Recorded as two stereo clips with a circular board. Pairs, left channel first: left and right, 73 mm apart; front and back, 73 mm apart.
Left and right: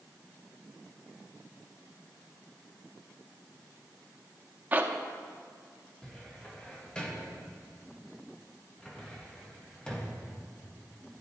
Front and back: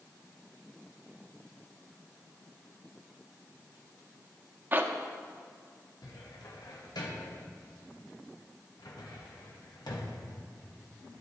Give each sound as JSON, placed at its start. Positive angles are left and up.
{"t": 4.7, "sound": "a zipper", "azimuth_deg": -135, "distance_m": 0.6}
{"t": 6.0, "sound": "a cupboard door", "azimuth_deg": 15, "distance_m": 1.0}